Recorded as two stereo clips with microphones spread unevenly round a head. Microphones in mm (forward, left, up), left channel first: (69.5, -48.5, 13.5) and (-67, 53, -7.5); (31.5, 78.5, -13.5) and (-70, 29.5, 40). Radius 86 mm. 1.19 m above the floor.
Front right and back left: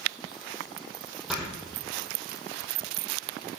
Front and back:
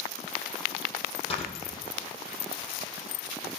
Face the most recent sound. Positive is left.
turn(degrees=60)